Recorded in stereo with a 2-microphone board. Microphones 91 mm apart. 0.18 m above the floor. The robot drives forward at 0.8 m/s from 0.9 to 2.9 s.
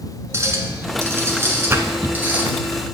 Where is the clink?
35° right (ahead or behind), 1.5 m; by 2.4 s 20° right (ahead or behind), 2.5 m.